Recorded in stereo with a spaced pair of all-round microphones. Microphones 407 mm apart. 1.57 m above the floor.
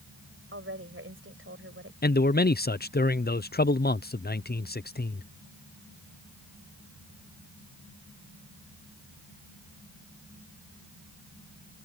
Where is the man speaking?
25° left (ahead or behind).